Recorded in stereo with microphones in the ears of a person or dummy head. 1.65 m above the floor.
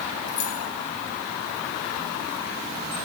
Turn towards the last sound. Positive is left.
turn(degrees=50)  # may be behind; listen again after turning